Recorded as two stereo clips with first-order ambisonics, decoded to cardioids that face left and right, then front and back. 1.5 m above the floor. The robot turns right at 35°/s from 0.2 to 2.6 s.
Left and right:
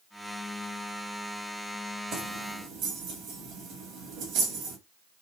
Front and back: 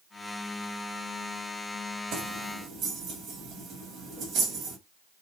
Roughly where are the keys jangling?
Behind right.